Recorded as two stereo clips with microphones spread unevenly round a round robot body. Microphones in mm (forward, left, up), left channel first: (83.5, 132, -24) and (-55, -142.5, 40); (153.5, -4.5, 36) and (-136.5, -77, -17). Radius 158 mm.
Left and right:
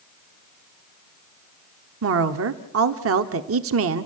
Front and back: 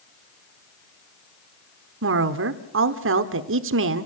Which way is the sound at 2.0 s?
160° right.